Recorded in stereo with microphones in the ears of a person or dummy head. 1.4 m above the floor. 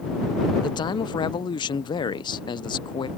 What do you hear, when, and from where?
0.6 s a man speaking: 20° left (ahead or behind)